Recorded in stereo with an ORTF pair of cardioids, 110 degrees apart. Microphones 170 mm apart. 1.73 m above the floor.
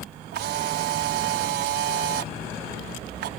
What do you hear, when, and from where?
0.3 s a camera shutter: 70° right